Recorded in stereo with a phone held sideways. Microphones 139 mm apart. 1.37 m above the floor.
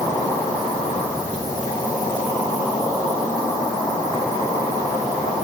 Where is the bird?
I don't hear a bird.